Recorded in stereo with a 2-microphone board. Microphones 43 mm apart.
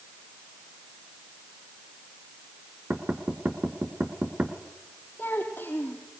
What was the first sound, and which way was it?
Knocking, 40° right (ahead or behind).